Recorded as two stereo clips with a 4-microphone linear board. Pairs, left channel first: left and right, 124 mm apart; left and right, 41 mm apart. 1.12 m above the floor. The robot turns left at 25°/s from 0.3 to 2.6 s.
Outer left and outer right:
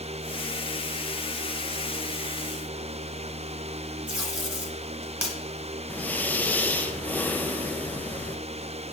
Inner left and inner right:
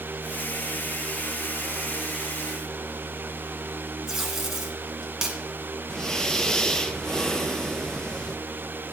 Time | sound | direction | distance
4.1 | tape being pulled | 10° right (ahead or behind) | 1.7 m
5.9 | breathing | 15° left (ahead or behind) | 0.5 m